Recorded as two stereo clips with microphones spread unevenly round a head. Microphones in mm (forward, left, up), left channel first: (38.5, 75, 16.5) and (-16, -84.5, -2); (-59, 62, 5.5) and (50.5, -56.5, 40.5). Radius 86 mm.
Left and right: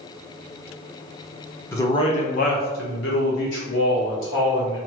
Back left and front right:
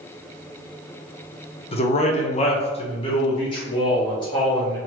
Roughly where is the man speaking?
Behind left.